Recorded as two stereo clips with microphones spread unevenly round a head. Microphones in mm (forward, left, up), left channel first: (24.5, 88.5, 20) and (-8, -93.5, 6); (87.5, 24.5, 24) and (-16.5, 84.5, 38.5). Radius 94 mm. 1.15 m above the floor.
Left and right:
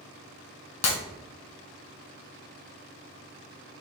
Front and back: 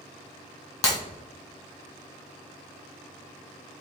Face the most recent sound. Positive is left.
turn(degrees=35)